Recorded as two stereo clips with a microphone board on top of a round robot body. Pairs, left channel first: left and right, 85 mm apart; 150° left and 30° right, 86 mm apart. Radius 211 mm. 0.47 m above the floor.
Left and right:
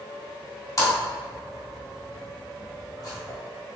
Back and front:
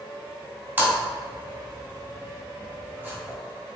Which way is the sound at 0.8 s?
40° left.